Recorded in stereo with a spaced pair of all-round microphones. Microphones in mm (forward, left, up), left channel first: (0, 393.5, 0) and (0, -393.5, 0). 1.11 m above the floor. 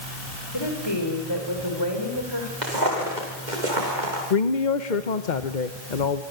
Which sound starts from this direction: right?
Footsteps, at 2.6 s.